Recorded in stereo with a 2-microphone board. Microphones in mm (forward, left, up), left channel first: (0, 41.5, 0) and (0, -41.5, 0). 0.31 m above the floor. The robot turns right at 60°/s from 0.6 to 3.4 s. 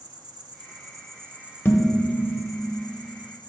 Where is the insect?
70° right, 0.7 m; by 3.5 s 100° left, 0.7 m.